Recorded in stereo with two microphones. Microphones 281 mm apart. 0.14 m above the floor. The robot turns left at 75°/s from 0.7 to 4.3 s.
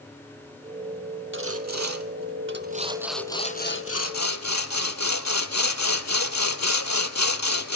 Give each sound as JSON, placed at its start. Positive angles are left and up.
{"t": 1.3, "sound": "sawing", "azimuth_deg": -45, "distance_m": 0.8}